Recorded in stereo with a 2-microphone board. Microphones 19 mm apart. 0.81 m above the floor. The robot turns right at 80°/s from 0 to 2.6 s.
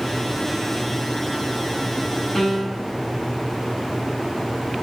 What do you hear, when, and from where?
2.4 s a piano: 45° left (ahead or behind), 1.7 m; by 2.9 s 25° left (ahead or behind), 1.7 m